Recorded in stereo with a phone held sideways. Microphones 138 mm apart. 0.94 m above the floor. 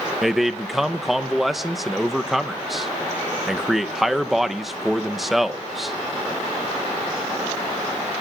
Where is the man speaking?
Centre (ahead or behind), 0.8 m.